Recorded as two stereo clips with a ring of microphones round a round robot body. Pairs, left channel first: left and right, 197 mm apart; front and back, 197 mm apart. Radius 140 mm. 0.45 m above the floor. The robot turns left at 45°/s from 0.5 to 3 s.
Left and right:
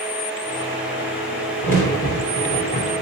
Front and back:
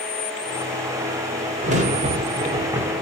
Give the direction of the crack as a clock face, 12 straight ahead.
6 o'clock.